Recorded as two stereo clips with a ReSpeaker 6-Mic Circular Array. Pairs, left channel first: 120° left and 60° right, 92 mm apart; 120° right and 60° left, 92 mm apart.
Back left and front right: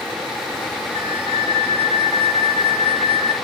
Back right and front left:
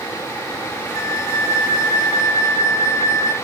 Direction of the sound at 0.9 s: 65° right.